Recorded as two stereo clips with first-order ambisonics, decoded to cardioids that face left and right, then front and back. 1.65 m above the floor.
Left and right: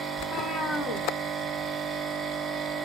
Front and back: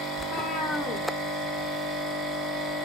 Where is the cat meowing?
55° left, 1.3 m; by 2.7 s 165° right, 1.0 m.